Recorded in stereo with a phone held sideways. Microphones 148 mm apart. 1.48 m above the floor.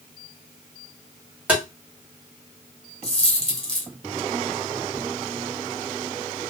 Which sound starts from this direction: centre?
Tapping, at 1.5 s.